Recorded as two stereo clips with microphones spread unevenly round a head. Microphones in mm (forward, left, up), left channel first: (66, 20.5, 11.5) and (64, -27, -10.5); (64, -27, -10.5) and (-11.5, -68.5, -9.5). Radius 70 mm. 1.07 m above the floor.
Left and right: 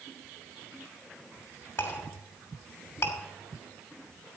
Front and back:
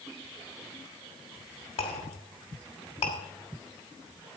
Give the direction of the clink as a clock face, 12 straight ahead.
10 o'clock.